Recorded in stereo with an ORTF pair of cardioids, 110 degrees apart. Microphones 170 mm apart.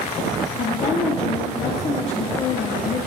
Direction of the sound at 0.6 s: 40° left.